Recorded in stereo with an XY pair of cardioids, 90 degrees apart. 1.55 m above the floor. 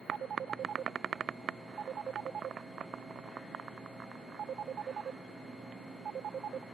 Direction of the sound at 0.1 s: 65° right.